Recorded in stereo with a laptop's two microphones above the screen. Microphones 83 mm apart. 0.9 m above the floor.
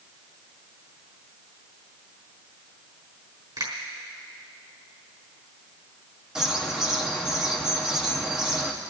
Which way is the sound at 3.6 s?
55° right (ahead or behind).